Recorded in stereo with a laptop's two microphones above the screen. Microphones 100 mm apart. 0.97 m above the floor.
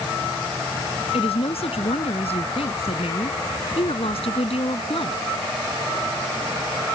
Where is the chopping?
I don't hear chopping.